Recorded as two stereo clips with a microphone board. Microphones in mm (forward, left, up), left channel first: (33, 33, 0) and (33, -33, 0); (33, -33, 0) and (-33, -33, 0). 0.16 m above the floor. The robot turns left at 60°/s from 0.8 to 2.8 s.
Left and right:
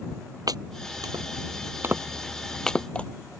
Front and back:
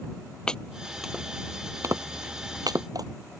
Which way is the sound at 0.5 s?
75° right.